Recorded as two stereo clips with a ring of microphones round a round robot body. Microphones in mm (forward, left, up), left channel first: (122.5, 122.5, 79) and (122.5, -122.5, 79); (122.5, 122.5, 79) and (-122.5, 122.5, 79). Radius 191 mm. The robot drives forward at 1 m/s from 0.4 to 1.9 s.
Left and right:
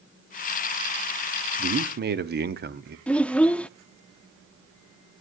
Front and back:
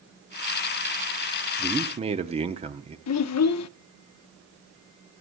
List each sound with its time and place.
1.6 s a man speaking: 85° right, 0.7 m; by 3.0 s 120° right, 0.8 m
3.1 s a child speaking: 5° left, 0.5 m